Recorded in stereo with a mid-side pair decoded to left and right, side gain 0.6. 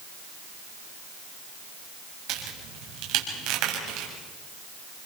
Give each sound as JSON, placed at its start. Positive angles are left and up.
{"t": 2.3, "sound": "a crack", "azimuth_deg": -70, "distance_m": 6.5}